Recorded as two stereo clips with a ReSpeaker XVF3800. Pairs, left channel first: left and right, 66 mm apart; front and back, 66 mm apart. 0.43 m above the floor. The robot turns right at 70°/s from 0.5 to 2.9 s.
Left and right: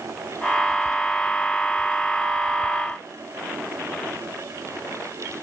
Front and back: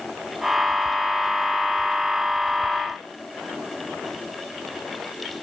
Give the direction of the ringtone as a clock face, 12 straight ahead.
No ringtone in this recording.